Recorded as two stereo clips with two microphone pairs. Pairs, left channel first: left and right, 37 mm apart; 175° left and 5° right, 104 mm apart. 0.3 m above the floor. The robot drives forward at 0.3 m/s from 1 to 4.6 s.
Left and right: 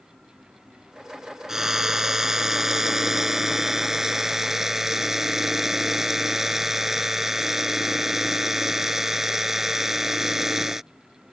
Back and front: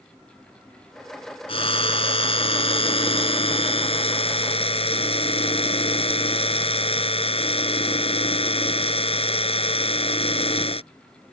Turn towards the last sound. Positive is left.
turn(degrees=-175)